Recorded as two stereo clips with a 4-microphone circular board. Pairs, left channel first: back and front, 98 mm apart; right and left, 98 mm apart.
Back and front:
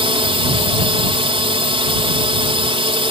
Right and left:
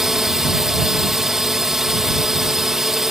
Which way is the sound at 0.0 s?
5° left.